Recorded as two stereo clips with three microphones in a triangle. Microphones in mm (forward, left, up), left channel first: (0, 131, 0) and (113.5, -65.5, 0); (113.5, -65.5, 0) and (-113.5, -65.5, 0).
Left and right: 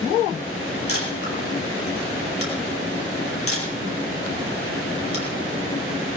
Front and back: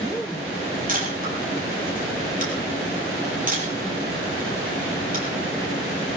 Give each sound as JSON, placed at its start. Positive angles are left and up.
{"t": 0.9, "sound": "a camera shutter", "azimuth_deg": 130, "distance_m": 6.5}